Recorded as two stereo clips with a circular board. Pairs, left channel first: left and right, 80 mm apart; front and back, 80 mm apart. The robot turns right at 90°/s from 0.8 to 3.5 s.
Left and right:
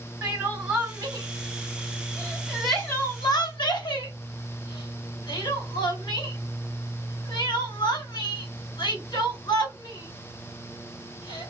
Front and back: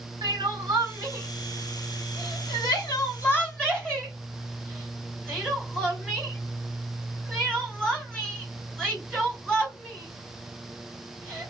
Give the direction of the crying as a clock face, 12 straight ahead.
6 o'clock.